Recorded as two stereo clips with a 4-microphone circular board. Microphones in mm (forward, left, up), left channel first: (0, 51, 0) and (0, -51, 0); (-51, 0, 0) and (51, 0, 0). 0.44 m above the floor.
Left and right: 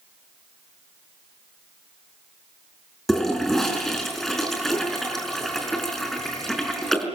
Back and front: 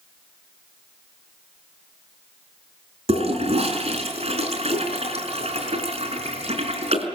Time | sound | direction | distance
3.1 | a toilet flushing | 5° left | 5 m